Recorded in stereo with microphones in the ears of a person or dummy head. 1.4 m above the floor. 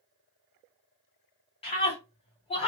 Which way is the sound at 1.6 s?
35° left (ahead or behind).